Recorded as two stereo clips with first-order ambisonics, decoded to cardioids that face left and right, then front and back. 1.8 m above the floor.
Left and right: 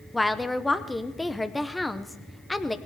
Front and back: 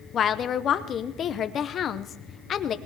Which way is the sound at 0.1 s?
10° left.